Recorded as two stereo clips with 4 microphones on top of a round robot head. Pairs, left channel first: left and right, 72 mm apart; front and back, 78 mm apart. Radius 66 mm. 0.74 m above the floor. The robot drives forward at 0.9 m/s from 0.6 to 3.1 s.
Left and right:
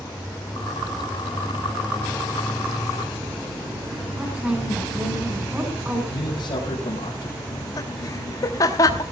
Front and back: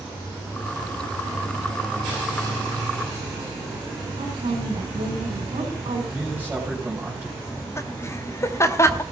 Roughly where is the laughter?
Ahead left.